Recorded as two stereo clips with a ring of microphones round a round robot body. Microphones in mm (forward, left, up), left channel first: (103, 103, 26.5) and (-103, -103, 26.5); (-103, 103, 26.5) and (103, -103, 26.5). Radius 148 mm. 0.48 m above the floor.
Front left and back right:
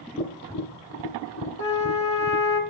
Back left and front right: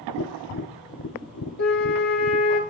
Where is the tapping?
95° left, 1.2 m.